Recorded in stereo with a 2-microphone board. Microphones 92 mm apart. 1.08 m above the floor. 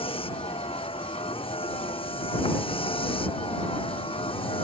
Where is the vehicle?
90° left; by 4.7 s 80° left.